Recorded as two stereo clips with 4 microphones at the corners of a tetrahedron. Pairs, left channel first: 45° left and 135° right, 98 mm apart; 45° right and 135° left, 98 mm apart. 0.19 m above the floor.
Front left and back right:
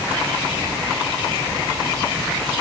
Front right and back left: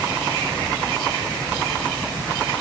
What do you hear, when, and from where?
Only background noise.